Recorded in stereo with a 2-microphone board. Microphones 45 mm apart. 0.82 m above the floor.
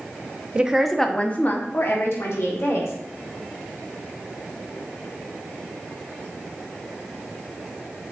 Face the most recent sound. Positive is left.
turn(degrees=70)  # may be behind; listen again after turning